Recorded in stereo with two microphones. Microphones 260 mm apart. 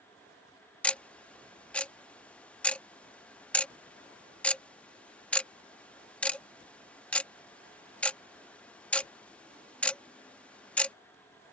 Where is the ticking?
5° left (ahead or behind).